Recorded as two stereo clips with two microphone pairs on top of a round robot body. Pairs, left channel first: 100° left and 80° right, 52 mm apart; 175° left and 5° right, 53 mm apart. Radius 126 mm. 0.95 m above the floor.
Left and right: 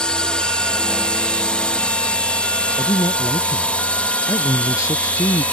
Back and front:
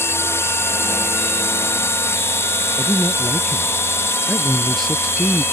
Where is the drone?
170° left; by 5.5 s 160° left.